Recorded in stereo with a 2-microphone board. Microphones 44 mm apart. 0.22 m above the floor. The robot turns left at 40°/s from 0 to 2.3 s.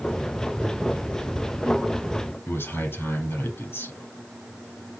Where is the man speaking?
60° left (ahead or behind), 4.5 m.